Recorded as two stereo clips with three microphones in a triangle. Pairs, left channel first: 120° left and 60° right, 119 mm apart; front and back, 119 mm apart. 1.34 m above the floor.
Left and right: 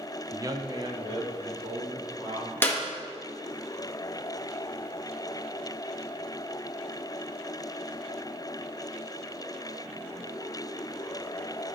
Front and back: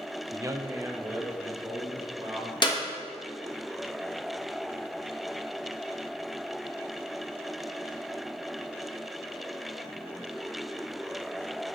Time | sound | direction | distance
0.3 | a man speaking | 120° right | 0.7 m
2.6 | a clap | 50° left | 1.5 m